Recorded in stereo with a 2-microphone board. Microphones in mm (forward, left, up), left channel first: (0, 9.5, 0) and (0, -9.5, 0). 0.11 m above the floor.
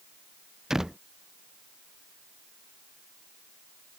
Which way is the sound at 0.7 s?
25° right (ahead or behind).